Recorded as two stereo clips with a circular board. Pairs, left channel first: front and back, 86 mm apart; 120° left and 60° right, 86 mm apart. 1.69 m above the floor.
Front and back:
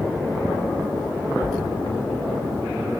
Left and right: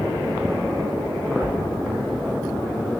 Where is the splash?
Straight ahead, 0.8 m.